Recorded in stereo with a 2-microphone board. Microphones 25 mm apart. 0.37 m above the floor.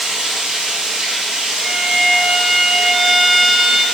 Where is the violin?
15° right (ahead or behind), 0.5 m.